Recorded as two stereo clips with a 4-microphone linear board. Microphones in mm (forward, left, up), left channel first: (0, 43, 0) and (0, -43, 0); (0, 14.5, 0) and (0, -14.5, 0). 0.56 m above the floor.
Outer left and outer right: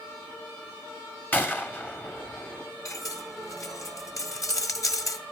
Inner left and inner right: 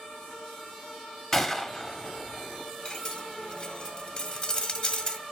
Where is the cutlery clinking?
40° left (ahead or behind), 1.5 m.